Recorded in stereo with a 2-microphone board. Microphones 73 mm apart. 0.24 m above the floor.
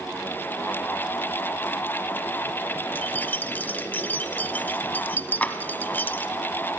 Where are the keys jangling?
25° left (ahead or behind), 0.8 m.